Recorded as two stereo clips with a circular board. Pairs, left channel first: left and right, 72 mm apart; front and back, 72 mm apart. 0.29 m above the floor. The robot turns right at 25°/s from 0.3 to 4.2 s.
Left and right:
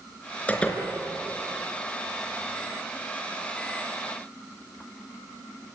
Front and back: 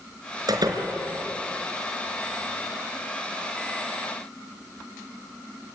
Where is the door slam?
160° left, 4 m; by 0.8 s 170° left, 4 m.